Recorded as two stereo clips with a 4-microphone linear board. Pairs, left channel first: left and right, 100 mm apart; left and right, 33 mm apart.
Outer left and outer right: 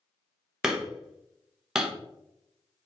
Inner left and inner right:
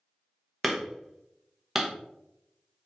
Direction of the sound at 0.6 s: 5° right (ahead or behind).